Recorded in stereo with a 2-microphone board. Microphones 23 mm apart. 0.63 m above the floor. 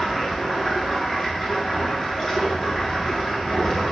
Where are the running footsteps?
I don't hear running footsteps.